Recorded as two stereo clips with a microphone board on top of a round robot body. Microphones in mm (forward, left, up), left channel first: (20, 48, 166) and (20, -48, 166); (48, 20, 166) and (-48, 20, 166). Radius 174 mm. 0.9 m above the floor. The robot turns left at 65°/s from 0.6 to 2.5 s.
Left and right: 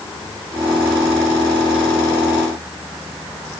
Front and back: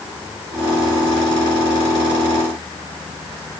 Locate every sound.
Only background noise.